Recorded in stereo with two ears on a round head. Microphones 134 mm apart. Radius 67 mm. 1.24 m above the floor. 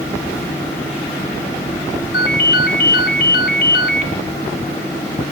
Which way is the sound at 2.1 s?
75° left (ahead or behind).